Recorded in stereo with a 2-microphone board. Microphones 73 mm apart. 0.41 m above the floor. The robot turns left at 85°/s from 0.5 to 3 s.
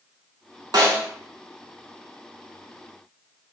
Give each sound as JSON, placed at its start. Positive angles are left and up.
{"t": 0.7, "sound": "a snare drum", "side_deg": -80, "distance_m": 0.9}